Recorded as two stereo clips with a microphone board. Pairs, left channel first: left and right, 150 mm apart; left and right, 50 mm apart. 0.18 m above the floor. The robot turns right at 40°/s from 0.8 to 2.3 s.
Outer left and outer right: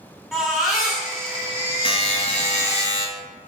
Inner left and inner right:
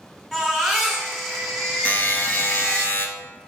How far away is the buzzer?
About 0.5 m.